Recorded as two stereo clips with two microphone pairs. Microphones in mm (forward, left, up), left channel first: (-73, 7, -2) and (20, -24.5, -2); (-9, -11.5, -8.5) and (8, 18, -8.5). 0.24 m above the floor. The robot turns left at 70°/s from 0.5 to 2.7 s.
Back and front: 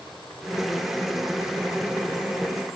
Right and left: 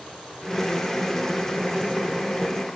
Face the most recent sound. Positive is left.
No sound to turn to.